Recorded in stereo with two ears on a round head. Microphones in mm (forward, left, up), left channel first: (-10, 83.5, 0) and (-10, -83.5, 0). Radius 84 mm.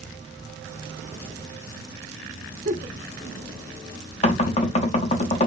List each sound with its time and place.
2.6 s a giggle: 50° right (ahead or behind), 0.9 m
4.2 s knocking: 35° left (ahead or behind), 0.5 m